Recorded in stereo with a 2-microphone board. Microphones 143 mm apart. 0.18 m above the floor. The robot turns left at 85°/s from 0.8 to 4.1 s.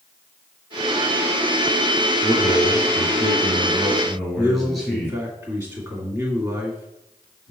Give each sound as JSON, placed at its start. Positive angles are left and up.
{"t": 2.2, "sound": "a man speaking", "azimuth_deg": -20, "distance_m": 3.0}
{"t": 4.3, "sound": "a man speaking", "side_deg": -25, "distance_m": 1.9}